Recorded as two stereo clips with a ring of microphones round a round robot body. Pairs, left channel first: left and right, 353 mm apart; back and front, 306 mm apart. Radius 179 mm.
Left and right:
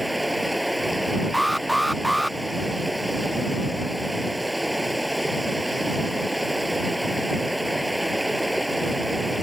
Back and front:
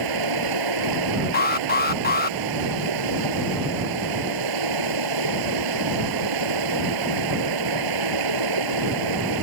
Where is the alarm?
Straight behind.